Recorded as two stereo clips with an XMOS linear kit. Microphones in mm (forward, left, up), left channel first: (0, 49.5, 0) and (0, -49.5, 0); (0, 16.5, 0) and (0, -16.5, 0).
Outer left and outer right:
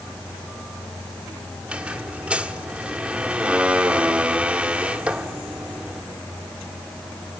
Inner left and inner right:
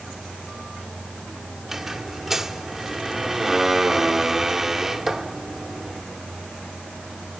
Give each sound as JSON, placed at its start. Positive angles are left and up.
{"t": 1.6, "sound": "a squeak", "side_deg": -10, "distance_m": 1.5}